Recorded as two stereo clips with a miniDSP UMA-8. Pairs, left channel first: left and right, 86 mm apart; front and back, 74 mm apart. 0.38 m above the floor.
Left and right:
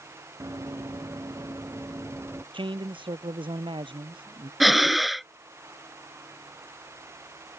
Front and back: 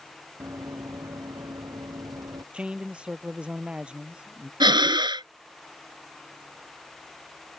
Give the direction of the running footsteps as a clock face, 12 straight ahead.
5 o'clock.